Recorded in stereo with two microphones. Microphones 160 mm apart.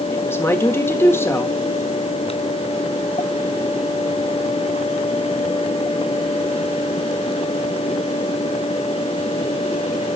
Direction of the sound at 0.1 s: 15° left (ahead or behind).